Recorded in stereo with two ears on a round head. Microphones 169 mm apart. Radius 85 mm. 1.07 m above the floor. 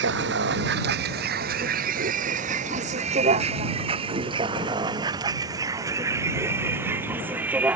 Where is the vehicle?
65° right (ahead or behind); by 7.8 s 5° right (ahead or behind).